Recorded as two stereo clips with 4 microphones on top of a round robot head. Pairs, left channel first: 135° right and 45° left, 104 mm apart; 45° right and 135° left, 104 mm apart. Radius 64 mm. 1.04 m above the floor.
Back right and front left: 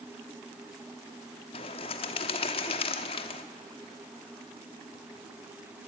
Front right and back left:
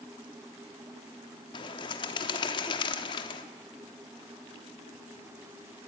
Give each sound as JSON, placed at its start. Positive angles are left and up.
{"t": 1.5, "sound": "a bird", "azimuth_deg": -90, "distance_m": 1.0}